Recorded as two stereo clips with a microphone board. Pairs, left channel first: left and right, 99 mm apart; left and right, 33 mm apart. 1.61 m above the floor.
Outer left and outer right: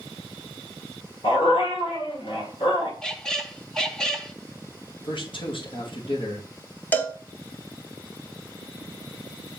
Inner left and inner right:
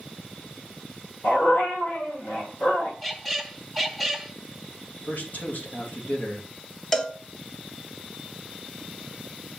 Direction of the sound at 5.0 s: 55° left (ahead or behind).